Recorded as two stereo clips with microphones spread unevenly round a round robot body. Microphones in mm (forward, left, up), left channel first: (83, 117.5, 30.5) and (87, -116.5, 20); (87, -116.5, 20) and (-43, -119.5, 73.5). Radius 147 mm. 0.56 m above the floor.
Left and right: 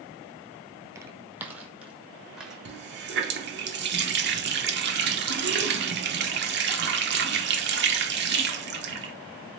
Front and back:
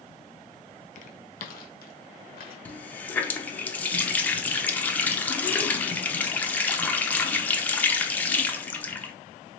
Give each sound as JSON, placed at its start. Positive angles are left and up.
{"t": 0.9, "sound": "footsteps", "azimuth_deg": -15, "distance_m": 0.6}
{"t": 2.6, "sound": "a running tap", "azimuth_deg": -60, "distance_m": 0.9}